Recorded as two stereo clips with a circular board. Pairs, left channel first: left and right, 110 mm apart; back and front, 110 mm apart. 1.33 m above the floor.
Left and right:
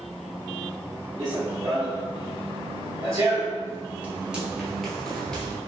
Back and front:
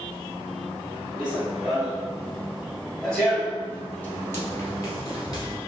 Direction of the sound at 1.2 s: 75° right.